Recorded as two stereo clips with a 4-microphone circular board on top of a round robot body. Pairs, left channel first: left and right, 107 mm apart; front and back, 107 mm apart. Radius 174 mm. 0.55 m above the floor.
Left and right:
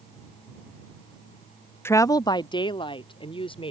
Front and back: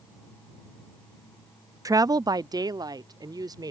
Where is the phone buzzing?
No phone buzzing in this recording.